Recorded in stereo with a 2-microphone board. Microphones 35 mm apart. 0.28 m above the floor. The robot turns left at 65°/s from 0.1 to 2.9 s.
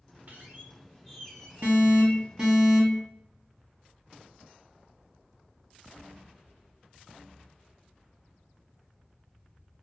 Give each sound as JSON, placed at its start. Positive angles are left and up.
{"t": 0.3, "sound": "a squeak", "azimuth_deg": -115, "distance_m": 0.9}
{"t": 1.6, "sound": "an alarm", "azimuth_deg": -105, "distance_m": 1.9}